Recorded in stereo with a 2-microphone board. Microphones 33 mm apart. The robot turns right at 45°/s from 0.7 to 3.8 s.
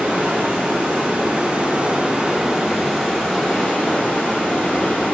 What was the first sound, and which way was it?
Running water, 100° right.